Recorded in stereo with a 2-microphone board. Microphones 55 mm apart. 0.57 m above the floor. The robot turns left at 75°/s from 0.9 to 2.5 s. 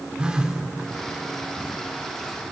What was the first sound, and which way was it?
A phone buzzing, 20° right (ahead or behind).